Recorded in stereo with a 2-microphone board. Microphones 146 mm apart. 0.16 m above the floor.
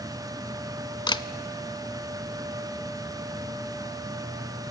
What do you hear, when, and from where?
1.1 s a camera shutter: 30° left (ahead or behind), 0.5 m